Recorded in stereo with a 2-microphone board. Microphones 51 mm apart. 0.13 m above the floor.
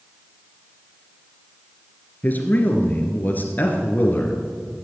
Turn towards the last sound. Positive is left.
turn(degrees=35)  # may be behind; listen again after turning